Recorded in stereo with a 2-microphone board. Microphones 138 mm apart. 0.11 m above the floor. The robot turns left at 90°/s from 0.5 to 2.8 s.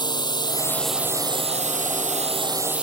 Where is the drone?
35° left; by 2.8 s 170° right.